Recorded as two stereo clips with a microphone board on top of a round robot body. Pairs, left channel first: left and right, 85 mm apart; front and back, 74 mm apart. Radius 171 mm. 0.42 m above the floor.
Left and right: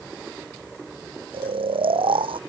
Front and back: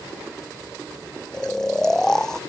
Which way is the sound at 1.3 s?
80° right.